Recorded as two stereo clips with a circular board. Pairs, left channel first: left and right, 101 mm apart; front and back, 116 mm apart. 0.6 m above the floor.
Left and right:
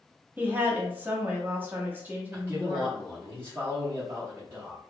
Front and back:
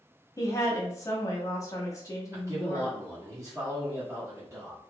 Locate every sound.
0.4 s a woman speaking: 35° right, 0.8 m
2.3 s a man speaking: 140° right, 0.7 m